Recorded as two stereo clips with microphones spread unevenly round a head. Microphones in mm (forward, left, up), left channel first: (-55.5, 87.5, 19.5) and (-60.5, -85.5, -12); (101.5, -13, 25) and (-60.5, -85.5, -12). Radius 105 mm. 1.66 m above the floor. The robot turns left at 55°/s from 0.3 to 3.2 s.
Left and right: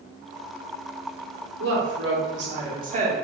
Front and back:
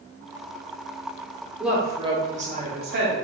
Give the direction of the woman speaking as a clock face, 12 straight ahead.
2 o'clock.